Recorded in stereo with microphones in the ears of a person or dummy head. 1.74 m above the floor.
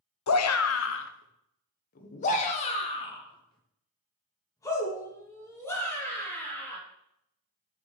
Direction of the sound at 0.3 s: 85° left.